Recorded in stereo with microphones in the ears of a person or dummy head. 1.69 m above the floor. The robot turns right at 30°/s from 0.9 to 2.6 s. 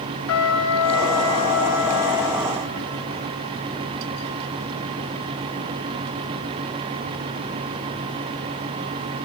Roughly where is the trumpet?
Left.